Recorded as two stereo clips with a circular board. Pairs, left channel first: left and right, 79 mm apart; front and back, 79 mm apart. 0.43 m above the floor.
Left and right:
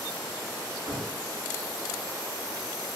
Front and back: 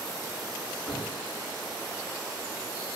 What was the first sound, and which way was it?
A cupboard door, 105° right.